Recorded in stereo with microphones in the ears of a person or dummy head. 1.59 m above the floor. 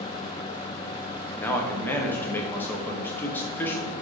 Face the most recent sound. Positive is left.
turn(degrees=15)  # may be behind; listen again after turning